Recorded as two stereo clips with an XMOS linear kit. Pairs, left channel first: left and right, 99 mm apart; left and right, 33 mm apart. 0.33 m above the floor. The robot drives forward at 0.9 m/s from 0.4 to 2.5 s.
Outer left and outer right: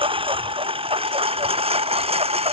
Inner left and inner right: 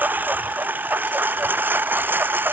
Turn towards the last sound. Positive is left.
turn(degrees=-85)